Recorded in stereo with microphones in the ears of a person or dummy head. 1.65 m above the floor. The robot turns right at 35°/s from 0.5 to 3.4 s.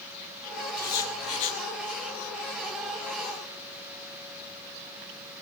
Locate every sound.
0.8 s writing: 15° left (ahead or behind), 7 m; by 1.6 s 40° left (ahead or behind), 7 m